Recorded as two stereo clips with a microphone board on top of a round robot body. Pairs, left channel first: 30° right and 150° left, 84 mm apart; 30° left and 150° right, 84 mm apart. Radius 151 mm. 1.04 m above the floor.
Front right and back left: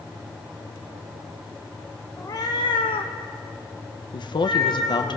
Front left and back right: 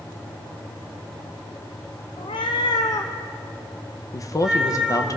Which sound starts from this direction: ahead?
A woman speaking, at 4.1 s.